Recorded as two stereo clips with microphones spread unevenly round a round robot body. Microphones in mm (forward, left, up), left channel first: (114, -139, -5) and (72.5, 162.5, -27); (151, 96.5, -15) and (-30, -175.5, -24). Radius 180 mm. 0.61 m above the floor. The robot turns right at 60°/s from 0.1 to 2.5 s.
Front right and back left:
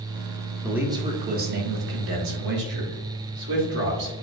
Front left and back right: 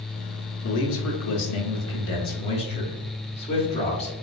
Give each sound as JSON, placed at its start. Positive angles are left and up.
{"t": 0.6, "sound": "a man speaking", "azimuth_deg": 15, "distance_m": 1.1}